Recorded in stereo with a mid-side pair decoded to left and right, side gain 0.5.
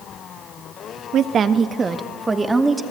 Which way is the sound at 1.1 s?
60° right.